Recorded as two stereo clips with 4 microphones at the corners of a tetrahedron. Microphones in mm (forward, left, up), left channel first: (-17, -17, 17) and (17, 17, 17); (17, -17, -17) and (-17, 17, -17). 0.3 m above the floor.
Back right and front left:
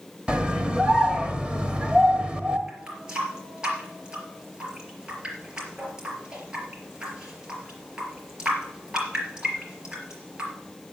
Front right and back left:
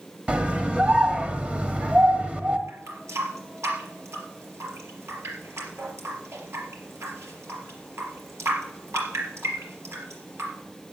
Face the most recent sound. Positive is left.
turn(degrees=120)